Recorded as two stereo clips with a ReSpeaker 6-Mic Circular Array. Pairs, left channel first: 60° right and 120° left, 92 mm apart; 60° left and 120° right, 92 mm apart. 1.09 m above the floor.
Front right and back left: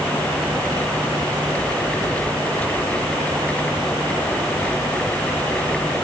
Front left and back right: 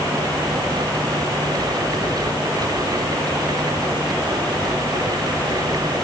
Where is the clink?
No clink in this recording.